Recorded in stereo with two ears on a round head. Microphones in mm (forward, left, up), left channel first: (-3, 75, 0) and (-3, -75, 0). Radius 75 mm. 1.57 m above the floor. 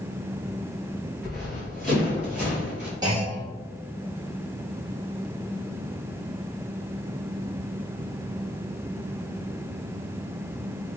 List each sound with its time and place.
1.2 s running footsteps: centre (ahead or behind), 1.9 m; by 2.9 s 10° right (ahead or behind), 2.5 m
3.0 s a clunk: 25° right (ahead or behind), 1.6 m